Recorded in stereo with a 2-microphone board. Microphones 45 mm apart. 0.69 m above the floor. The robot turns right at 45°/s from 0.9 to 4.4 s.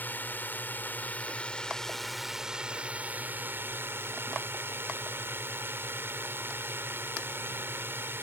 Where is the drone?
125° left; by 8.2 s 80° right.